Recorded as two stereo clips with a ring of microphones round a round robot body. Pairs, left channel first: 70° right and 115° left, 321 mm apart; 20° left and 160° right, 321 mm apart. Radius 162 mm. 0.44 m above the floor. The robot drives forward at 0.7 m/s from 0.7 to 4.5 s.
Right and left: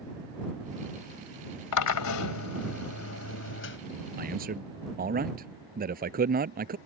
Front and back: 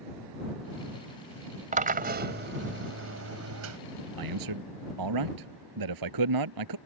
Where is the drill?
90° right; by 3.8 s 120° right.